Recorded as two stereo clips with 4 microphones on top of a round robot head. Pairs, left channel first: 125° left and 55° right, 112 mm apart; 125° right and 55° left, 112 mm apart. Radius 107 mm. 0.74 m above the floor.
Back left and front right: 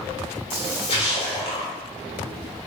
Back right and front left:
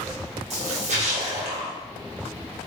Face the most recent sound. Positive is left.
turn(degrees=80)